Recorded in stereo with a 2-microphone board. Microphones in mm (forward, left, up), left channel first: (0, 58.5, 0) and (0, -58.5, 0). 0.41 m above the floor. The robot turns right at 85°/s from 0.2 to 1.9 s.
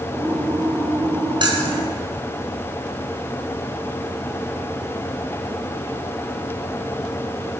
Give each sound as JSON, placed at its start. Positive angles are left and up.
{"t": 1.4, "sound": "keys jangling", "side_deg": -45, "distance_m": 3.5}